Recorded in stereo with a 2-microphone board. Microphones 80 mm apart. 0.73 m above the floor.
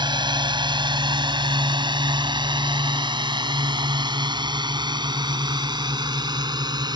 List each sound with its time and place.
0.0 s a drone: 75° right (ahead or behind); by 7.0 s 65° right (ahead or behind)